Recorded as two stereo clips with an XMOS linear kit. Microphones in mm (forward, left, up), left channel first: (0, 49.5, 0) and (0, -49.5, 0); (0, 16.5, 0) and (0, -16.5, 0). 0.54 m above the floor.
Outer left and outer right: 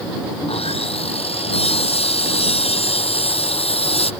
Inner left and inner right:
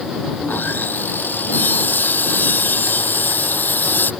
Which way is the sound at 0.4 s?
80° left.